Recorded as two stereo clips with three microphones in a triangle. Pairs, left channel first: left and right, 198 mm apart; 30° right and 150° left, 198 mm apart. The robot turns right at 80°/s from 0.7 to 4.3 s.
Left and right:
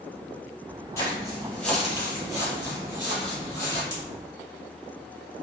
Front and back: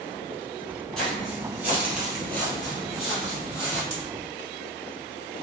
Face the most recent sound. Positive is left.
turn(degrees=-130)